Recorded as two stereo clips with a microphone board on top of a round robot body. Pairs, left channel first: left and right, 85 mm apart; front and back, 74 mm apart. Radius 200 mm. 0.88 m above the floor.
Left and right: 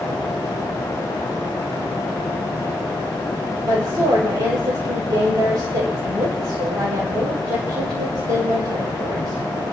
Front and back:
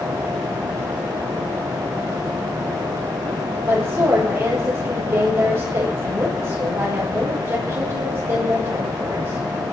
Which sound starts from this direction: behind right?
A woman speaking, at 3.7 s.